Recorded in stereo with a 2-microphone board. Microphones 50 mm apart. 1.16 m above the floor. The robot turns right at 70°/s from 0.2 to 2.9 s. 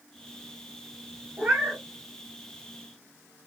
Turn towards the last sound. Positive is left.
turn(degrees=65)